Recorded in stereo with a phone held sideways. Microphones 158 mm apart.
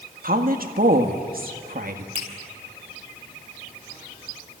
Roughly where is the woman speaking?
Right.